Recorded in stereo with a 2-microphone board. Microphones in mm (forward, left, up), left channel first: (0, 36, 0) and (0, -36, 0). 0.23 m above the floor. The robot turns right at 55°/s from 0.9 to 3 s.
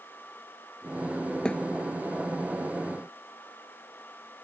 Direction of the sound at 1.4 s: 10° left (ahead or behind).